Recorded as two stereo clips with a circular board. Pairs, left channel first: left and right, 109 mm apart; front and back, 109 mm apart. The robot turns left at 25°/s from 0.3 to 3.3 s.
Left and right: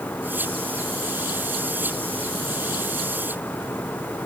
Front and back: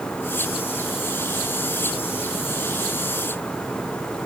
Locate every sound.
Only background noise.